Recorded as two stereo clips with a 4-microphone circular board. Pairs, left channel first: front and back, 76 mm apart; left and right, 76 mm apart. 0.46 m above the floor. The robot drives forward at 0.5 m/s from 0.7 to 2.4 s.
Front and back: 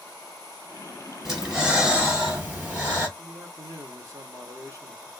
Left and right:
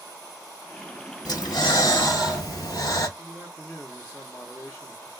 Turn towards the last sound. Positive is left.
turn(degrees=145)